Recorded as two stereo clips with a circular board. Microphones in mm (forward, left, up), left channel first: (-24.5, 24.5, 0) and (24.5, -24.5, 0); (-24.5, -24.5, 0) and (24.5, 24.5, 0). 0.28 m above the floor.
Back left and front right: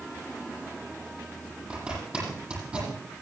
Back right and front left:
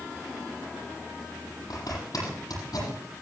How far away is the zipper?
About 8.5 m.